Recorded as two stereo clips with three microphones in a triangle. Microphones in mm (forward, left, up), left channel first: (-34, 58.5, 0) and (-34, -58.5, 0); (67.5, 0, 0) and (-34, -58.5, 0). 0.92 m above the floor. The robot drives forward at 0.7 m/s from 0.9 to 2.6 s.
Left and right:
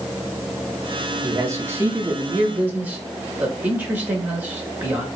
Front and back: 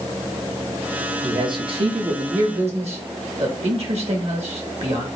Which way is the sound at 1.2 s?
130° right.